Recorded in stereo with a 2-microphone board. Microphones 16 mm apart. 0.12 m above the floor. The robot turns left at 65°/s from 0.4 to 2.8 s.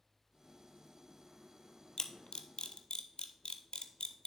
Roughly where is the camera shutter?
Left.